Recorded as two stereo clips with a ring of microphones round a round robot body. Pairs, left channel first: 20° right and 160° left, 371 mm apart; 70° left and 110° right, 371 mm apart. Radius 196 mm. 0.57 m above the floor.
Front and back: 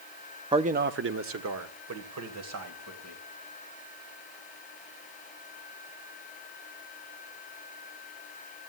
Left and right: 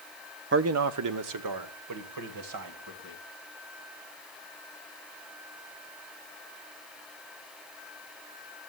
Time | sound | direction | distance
0.5 | a man speaking | 135° right | 0.7 m